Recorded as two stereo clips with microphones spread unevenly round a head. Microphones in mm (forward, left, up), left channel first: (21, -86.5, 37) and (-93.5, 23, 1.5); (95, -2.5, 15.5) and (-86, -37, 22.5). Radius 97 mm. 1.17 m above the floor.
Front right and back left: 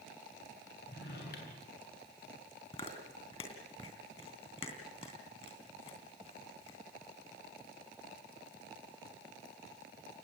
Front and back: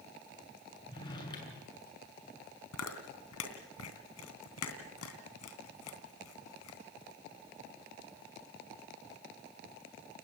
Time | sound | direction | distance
0.9 | a drawer | 55° right | 6.5 m
2.7 | chewing | 15° left | 3 m